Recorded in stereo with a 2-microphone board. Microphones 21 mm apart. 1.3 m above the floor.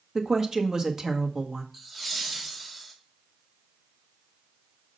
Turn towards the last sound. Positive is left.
turn(degrees=-10)  # may be behind; listen again after turning